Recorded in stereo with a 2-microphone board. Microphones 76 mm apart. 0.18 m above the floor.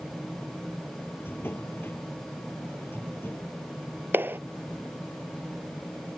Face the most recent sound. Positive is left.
turn(degrees=-30)  # may be behind; listen again after turning